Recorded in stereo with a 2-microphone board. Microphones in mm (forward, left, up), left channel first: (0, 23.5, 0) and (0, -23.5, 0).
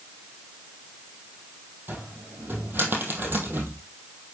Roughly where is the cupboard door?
Right.